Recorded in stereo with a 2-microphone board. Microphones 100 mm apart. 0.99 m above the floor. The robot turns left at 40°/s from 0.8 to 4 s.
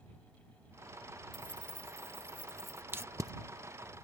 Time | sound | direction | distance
1.3 | keys jangling | 125° right | ?
2.9 | tape being pulled | 20° right (ahead or behind) | ?